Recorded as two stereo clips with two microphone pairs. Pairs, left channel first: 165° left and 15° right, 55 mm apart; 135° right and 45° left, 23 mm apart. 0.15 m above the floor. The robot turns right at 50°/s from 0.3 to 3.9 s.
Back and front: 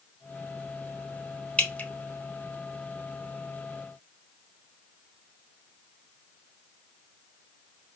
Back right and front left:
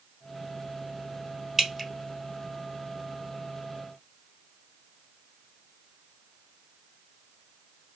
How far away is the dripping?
About 0.7 m.